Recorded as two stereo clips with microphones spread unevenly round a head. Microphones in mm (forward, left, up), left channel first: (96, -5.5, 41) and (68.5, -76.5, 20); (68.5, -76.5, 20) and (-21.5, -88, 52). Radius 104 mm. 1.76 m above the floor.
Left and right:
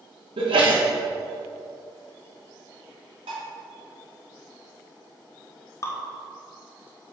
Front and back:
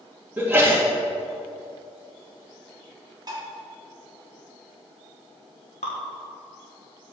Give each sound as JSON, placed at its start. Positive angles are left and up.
{"t": 0.4, "sound": "a sneeze", "azimuth_deg": -110, "distance_m": 2.5}
{"t": 3.3, "sound": "dishes clattering", "azimuth_deg": -145, "distance_m": 1.9}
{"t": 5.8, "sound": "dripping", "azimuth_deg": 60, "distance_m": 1.1}